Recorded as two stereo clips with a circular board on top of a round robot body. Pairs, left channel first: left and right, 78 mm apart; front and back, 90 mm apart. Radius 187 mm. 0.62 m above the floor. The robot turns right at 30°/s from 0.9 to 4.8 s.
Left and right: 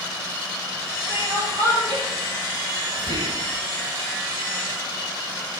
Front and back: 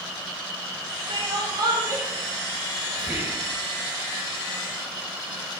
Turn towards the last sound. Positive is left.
turn(degrees=-55)